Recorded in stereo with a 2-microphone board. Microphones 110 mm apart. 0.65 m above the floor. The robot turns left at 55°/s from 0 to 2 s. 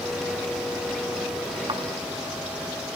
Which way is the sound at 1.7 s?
45° right (ahead or behind).